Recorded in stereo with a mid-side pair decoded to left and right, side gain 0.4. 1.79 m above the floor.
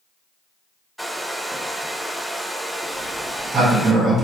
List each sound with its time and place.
1.0 s a hair dryer: 5° right, 0.6 m
2.9 s a sliding door: 50° right, 1.5 m